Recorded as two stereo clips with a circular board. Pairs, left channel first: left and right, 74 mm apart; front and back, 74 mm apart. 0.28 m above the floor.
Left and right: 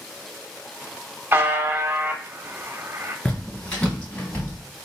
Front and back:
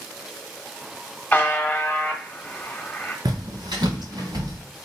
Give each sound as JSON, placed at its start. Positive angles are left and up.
{"t": 1.3, "sound": "a buzzer", "azimuth_deg": -55, "distance_m": 0.7}
{"t": 3.2, "sound": "footsteps", "azimuth_deg": 165, "distance_m": 1.7}